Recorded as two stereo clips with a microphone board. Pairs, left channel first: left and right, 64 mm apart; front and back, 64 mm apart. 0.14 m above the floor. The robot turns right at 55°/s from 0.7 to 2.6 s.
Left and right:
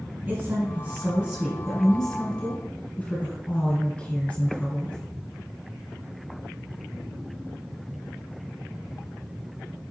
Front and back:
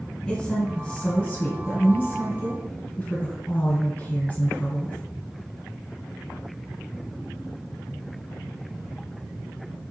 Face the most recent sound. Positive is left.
turn(degrees=45)